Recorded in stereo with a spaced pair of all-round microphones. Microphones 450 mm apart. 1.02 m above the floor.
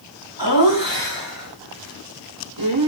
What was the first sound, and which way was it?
Laughter, 80° right.